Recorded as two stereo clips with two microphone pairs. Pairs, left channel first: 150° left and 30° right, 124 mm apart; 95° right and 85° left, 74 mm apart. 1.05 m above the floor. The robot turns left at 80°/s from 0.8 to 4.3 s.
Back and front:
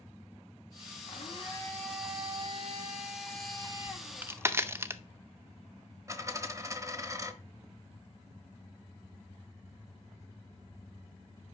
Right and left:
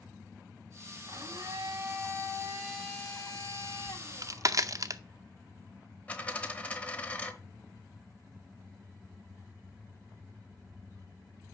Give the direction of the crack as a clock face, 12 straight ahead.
10 o'clock.